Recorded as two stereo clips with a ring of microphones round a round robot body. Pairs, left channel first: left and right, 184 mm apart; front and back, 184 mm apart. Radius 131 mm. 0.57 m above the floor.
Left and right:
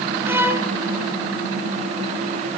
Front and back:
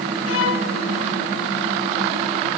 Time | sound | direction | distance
0.2 | a violin | 10° right | 1.9 m